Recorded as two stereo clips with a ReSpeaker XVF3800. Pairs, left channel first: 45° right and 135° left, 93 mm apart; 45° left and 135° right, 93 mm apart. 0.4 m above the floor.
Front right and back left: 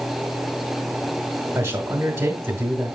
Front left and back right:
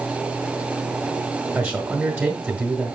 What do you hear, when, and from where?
1.6 s a man speaking: 170° left, 1.1 m